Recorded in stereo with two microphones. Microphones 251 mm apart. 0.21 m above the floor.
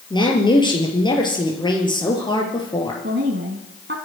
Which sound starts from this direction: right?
A woman speaking, at 3.0 s.